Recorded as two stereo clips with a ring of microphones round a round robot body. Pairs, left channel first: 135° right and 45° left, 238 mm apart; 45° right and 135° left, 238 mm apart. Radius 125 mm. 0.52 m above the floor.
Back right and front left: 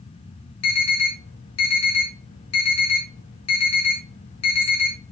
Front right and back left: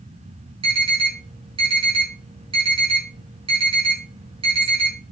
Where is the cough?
No cough in this recording.